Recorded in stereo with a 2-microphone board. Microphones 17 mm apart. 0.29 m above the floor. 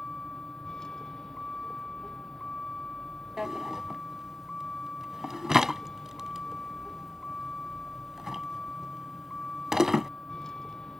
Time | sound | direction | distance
0.0 | a vehicle | 35° left (ahead or behind) | ?
3.4 | a drawer | 20° right (ahead or behind) | ?